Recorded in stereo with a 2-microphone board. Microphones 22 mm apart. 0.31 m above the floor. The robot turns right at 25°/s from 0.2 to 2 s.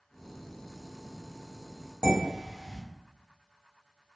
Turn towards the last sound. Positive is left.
turn(degrees=-60)  # may be behind; listen again after turning